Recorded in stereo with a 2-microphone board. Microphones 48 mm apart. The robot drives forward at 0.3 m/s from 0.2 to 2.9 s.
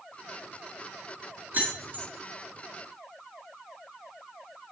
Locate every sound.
1.5 s keys jangling: 40° right (ahead or behind), 1.3 m